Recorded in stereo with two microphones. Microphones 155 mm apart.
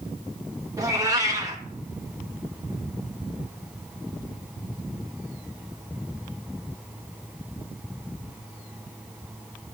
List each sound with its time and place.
0.8 s a cat meowing: 20° right (ahead or behind), 1.0 m